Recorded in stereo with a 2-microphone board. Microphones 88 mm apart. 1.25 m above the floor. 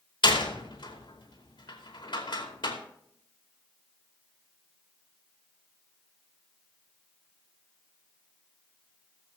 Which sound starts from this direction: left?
A door slam, at 0.2 s.